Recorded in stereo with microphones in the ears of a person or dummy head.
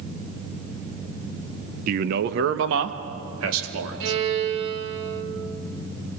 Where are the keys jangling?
No keys jangling in this recording.